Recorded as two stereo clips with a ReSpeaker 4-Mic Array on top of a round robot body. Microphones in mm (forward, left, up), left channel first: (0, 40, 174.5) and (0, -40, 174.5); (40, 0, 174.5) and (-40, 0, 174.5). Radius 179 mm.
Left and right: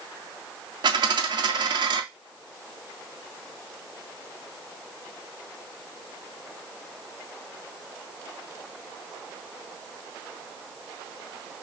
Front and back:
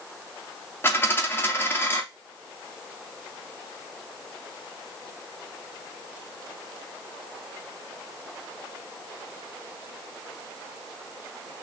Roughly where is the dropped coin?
Ahead right.